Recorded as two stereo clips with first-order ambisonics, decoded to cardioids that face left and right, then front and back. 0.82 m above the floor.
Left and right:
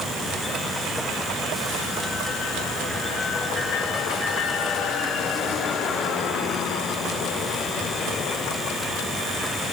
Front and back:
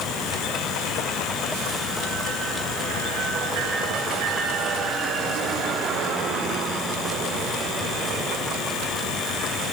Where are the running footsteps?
No running footsteps in this recording.